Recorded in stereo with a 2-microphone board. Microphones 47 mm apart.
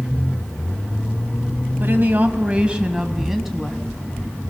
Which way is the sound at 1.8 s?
45° right (ahead or behind).